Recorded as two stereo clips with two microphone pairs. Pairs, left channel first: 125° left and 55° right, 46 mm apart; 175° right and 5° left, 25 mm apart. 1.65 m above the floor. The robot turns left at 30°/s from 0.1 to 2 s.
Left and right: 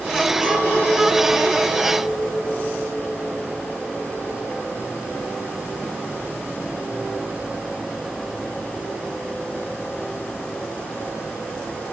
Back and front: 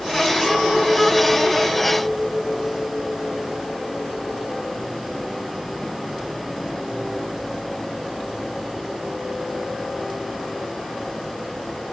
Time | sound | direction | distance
0.4 | a clink | 105° right | 2.5 m